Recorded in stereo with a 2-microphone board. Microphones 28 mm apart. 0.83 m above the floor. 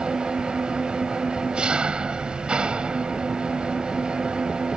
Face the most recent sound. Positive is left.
turn(degrees=-35)  # may be behind; listen again after turning